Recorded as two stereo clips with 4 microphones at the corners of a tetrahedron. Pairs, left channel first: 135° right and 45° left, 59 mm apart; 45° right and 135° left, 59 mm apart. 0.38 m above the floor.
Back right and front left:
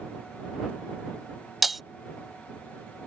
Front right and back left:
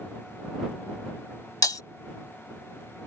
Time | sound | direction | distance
1.6 | breaking glass | 45° right | ?